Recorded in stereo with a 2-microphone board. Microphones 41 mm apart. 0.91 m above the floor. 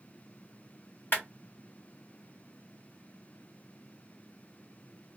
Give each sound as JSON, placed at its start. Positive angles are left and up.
{"t": 1.1, "sound": "a clap", "side_deg": 55, "distance_m": 1.5}